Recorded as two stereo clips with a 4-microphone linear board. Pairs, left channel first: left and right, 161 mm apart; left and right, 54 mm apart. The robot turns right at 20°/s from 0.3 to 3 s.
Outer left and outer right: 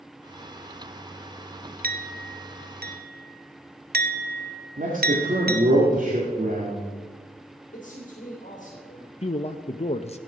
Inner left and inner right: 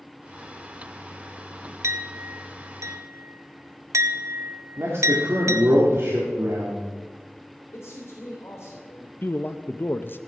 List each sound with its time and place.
1.8 s a clink: 65° right (ahead or behind), 0.7 m; by 5.7 s 70° right (ahead or behind), 0.7 m
4.8 s a man speaking: 55° right (ahead or behind), 2 m
7.7 s a man speaking: 55° left (ahead or behind), 3 m
9.2 s a man speaking: 40° left (ahead or behind), 0.5 m